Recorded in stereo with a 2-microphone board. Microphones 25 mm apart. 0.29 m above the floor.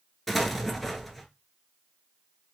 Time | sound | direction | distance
0.3 | an explosion | 5° left (ahead or behind) | 0.8 m